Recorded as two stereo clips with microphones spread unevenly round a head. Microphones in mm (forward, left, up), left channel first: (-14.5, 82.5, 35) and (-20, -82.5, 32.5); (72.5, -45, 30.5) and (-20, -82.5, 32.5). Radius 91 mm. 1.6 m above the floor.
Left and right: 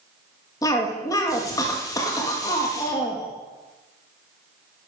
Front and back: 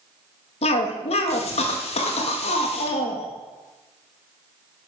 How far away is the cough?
About 2 m.